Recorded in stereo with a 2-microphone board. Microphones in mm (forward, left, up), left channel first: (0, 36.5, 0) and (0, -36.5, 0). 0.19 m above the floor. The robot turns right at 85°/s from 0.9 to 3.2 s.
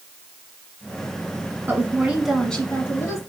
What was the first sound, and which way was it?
A woman speaking, 55° right.